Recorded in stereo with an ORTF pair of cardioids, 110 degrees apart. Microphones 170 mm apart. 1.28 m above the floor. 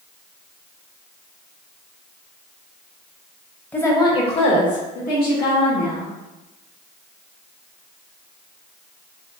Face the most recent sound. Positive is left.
turn(degrees=70)